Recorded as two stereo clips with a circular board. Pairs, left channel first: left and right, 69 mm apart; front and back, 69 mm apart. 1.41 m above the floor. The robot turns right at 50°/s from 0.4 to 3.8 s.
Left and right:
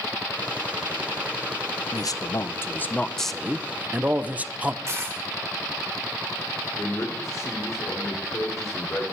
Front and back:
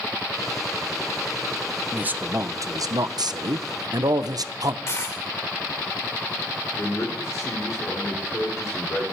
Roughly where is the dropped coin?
Ahead right.